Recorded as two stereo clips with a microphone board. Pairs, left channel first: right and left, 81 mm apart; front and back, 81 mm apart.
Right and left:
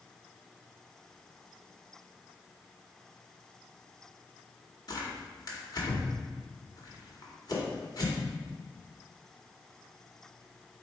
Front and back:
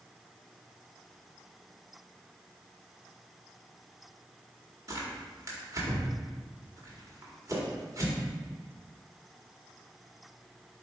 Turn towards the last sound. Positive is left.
turn(degrees=-130)